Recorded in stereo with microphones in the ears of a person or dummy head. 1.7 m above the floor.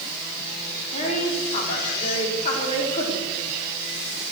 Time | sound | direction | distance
0.9 | a woman speaking | 40° left (ahead or behind) | 4.5 m